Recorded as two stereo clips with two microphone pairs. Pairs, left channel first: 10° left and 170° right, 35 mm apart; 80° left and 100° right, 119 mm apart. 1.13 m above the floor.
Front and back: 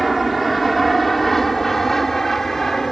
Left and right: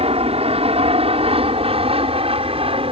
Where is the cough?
No cough in this recording.